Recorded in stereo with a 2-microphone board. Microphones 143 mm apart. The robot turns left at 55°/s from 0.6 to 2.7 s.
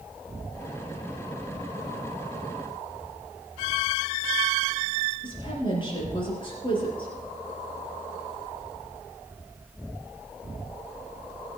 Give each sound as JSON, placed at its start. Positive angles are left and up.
{"t": 5.2, "sound": "a woman speaking", "side_deg": 35, "distance_m": 5.5}